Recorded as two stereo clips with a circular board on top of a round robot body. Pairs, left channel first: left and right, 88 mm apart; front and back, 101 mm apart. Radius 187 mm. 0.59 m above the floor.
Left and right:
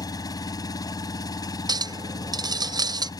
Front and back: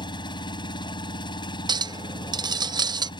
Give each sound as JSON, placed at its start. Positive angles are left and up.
{"t": 0.0, "sound": "an engine running", "azimuth_deg": 45}
{"t": 1.7, "sound": "a clink", "azimuth_deg": -135}